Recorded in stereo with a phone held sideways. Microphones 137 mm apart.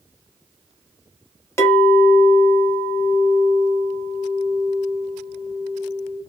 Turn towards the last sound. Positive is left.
turn(degrees=20)  # may be behind; listen again after turning